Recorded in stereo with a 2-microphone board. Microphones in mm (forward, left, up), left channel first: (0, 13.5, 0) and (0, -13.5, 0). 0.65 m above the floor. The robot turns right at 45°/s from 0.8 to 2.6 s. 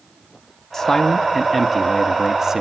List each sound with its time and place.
0.7 s a man speaking: 15° left (ahead or behind), 0.6 m; by 2.6 s 20° right (ahead or behind), 0.6 m